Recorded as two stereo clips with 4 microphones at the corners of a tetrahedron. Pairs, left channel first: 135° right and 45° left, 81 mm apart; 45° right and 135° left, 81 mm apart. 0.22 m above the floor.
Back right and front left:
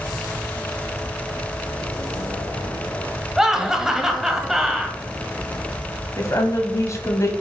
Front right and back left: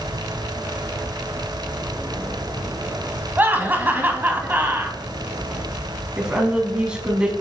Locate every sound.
3.4 s laughter: 120° left, 1.2 m
6.2 s a woman speaking: 150° right, 1.4 m